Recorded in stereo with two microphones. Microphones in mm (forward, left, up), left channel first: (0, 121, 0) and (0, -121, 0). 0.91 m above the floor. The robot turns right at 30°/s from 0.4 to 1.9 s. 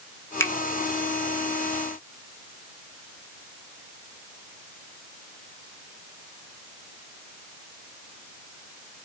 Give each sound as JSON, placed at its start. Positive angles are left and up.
{"t": 0.4, "sound": "a finger snap", "side_deg": 10, "distance_m": 1.0}